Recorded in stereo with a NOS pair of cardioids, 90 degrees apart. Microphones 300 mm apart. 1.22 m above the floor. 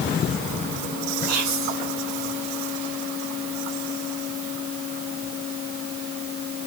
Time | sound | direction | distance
1.3 | whispering | 65° right | 2.5 m